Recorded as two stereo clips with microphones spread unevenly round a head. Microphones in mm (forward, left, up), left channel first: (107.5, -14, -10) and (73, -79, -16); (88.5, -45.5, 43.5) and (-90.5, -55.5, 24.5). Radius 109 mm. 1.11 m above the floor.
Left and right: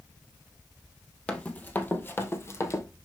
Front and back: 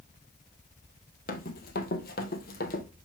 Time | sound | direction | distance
1.3 | running footsteps | 5° right | 1.7 m